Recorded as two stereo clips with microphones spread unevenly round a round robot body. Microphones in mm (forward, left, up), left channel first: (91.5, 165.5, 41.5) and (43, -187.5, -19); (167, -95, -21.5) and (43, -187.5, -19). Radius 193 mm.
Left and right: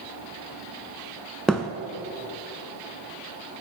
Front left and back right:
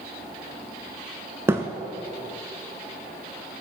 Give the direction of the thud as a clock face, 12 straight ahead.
7 o'clock.